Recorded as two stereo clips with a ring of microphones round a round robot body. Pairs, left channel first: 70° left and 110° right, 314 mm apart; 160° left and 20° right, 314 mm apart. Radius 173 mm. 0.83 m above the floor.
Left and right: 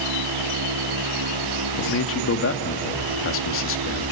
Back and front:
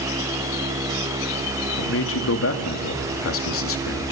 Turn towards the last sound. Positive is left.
turn(degrees=115)